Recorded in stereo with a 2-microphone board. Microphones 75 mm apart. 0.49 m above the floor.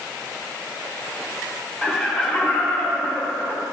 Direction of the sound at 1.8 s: 10° left (ahead or behind).